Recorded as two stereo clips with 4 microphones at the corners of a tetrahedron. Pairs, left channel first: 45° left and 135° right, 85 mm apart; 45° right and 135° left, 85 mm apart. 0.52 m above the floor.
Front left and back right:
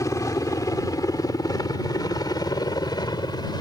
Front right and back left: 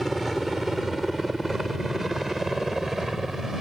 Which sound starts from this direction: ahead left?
A helicopter, at 0.0 s.